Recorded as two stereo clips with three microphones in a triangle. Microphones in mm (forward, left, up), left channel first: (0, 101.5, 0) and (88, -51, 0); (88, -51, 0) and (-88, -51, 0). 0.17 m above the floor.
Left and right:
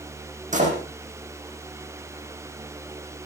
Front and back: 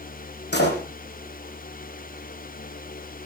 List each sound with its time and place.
0.5 s a door slam: 15° right, 5.5 m